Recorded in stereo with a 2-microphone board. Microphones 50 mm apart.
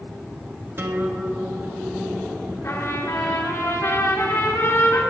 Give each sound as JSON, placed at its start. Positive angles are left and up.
{"t": 0.8, "sound": "a guitar", "side_deg": -50, "distance_m": 1.4}
{"t": 2.6, "sound": "a trumpet", "side_deg": 65, "distance_m": 2.5}